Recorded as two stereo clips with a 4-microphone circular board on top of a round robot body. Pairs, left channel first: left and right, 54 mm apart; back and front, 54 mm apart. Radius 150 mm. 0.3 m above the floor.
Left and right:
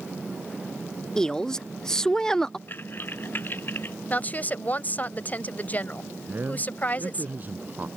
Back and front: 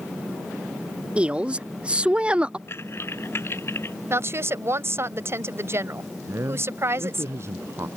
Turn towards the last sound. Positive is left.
turn(degrees=-35)